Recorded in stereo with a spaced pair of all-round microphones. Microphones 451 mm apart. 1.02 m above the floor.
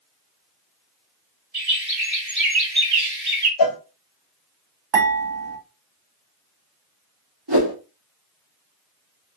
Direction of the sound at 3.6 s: 50° left (ahead or behind).